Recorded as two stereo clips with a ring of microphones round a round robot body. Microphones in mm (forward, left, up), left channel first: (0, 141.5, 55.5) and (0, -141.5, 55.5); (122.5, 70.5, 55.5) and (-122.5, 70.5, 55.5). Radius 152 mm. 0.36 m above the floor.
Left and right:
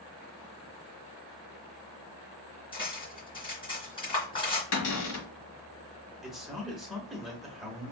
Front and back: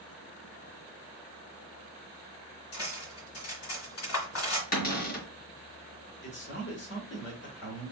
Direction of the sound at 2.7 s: 15° left.